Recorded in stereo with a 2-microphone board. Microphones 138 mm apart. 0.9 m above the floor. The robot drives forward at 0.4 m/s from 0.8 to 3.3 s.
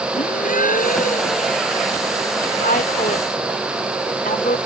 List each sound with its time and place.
0.1 s a gasp: 70° left (ahead or behind)
2.6 s a woman speaking: 75° left (ahead or behind)